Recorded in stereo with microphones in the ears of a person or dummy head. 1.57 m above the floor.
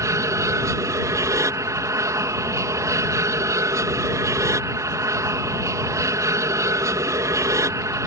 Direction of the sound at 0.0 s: 15° right (ahead or behind).